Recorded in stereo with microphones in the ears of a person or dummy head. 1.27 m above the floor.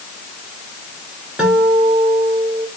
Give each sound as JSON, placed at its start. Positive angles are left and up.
{"t": 1.4, "sound": "a guitar", "side_deg": -5, "distance_m": 4.0}